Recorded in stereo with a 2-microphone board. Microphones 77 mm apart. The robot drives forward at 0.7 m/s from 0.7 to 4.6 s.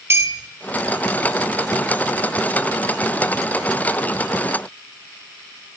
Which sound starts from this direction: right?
A clink, at 0.1 s.